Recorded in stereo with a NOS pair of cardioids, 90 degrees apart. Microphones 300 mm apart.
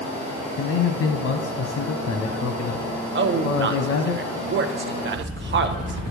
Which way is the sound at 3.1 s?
40° right.